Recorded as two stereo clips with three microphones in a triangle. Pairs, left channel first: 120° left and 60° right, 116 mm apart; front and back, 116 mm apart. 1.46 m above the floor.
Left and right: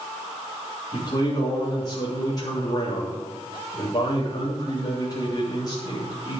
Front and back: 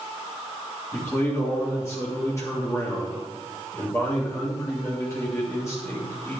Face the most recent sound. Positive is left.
turn(degrees=65)